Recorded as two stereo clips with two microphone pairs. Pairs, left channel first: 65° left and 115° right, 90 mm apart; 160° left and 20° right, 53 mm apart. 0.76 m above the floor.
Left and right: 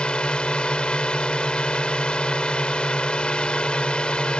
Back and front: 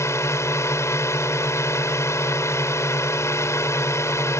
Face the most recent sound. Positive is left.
turn(degrees=145)